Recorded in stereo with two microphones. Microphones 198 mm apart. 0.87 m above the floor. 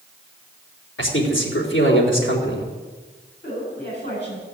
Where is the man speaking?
75° left (ahead or behind), 3 m.